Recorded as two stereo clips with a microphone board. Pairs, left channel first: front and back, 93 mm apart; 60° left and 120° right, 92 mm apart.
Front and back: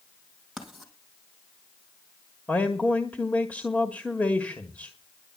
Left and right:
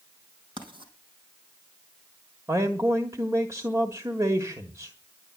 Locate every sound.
0.6 s writing: 95° right, 4 m
2.5 s a man speaking: 70° right, 1.5 m